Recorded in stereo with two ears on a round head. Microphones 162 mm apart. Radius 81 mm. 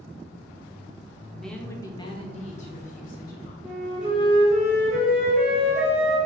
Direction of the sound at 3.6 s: 5° right (ahead or behind).